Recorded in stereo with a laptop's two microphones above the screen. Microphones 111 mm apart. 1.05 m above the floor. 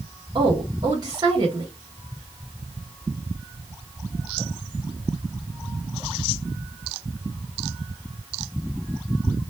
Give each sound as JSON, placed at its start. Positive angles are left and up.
{"t": 0.3, "sound": "a woman speaking", "side_deg": -35, "distance_m": 0.9}